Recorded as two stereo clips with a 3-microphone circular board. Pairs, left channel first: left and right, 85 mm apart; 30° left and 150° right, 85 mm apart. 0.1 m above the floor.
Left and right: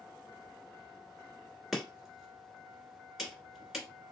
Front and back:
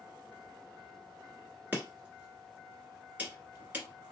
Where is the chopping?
175° right, 1.4 m.